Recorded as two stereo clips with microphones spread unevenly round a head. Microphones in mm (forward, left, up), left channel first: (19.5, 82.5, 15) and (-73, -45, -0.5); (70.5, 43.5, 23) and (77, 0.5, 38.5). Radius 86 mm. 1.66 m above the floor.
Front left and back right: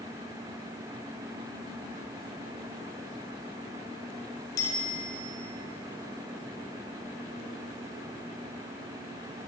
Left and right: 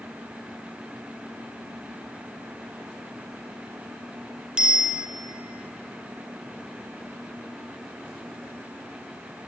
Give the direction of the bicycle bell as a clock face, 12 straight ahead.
1 o'clock.